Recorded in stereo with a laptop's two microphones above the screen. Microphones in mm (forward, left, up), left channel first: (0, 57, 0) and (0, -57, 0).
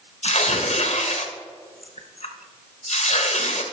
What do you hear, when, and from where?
0.2 s tearing paper: 70° left (ahead or behind), 0.8 m